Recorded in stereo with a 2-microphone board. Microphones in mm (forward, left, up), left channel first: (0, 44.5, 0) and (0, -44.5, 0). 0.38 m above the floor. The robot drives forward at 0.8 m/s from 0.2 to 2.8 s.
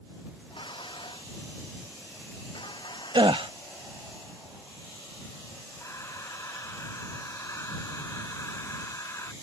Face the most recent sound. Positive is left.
turn(degrees=35)  # may be behind; listen again after turning